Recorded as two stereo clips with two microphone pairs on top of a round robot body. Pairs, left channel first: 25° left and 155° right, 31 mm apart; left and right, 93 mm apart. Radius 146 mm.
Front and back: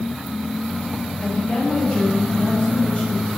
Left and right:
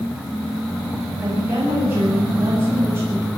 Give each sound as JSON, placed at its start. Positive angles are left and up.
{"t": 1.2, "sound": "a woman speaking", "azimuth_deg": -25, "distance_m": 8.0}